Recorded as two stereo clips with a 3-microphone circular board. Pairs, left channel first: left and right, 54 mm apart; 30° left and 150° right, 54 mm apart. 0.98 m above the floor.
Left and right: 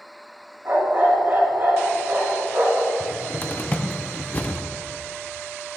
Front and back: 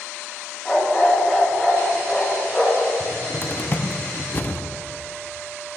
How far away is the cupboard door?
About 0.7 m.